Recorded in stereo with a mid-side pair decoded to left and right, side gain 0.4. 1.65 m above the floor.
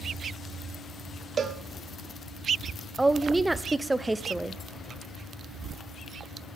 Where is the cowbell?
50° right, 0.6 m.